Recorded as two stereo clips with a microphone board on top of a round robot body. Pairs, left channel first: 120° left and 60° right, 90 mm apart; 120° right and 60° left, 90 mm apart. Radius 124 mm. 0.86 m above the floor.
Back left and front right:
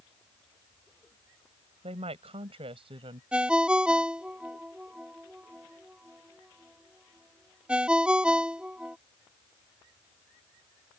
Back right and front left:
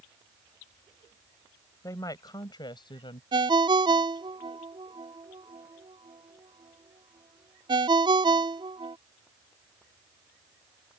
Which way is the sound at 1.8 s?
65° right.